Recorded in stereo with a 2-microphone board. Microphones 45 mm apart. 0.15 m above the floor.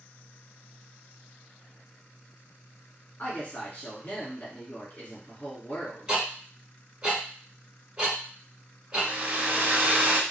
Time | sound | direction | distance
3.2 | a woman speaking | 35° left (ahead or behind) | 1.7 m
6.1 | ticking | 20° right (ahead or behind) | 1.2 m
8.9 | a hair dryer | 40° right (ahead or behind) | 0.5 m